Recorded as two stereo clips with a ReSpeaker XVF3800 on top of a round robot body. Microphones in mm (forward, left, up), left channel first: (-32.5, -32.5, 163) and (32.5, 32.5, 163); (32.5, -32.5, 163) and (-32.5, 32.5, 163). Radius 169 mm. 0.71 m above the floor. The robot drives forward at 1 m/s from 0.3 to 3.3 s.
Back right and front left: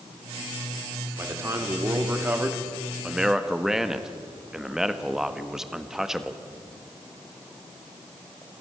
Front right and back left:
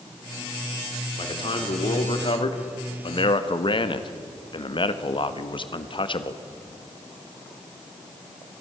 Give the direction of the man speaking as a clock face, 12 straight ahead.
1 o'clock.